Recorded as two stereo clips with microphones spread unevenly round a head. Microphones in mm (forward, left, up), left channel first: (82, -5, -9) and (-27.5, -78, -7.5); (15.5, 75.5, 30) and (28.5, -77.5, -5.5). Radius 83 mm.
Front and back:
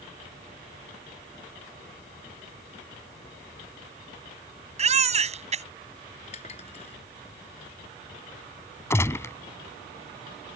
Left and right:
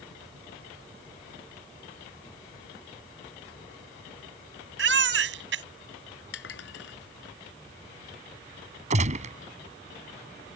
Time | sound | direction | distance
4.8 | a baby crying | 110° right | ?
6.3 | dishes clattering | 90° left | ?
8.9 | a gunshot | 35° right | ?